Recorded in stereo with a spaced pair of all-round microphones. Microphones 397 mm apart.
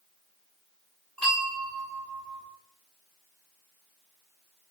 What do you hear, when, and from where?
1.2 s a bell: centre (ahead or behind), 2.5 m